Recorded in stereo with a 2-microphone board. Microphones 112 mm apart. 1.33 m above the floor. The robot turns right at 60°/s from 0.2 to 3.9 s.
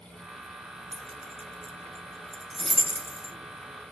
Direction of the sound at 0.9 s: 60° right (ahead or behind).